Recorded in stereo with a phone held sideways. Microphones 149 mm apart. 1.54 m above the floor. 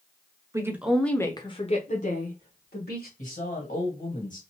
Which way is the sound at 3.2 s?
55° left (ahead or behind).